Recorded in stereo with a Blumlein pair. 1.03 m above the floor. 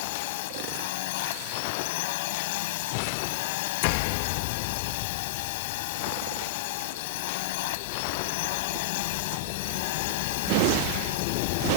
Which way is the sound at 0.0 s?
50° left.